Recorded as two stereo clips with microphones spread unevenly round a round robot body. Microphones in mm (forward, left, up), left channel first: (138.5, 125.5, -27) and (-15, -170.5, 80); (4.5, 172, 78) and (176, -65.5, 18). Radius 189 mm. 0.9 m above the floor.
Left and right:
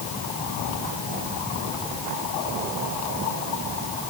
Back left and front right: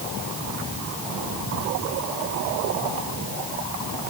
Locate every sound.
Only background noise.